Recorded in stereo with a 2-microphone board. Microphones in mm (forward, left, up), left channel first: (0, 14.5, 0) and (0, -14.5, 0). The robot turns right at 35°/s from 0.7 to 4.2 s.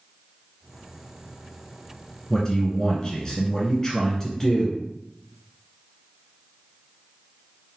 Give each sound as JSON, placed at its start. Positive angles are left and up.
{"t": 2.3, "sound": "a man speaking", "side_deg": 25, "distance_m": 1.2}